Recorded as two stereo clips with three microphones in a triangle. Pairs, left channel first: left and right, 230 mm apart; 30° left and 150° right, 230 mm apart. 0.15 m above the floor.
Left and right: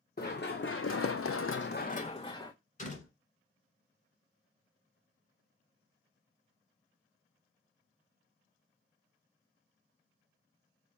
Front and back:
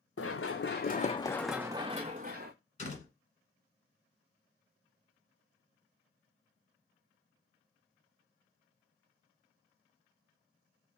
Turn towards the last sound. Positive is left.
turn(degrees=65)